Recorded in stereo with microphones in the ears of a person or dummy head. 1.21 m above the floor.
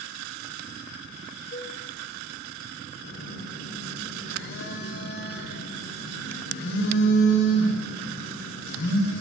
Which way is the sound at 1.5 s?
50° left (ahead or behind).